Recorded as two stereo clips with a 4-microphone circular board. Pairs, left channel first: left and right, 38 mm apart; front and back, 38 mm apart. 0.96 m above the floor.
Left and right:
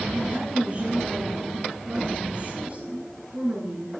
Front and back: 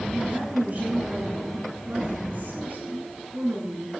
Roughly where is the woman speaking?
Behind right.